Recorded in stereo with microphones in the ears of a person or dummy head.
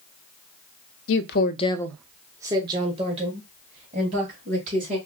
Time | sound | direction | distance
1.1 | a woman speaking | 75° left (ahead or behind) | 0.6 m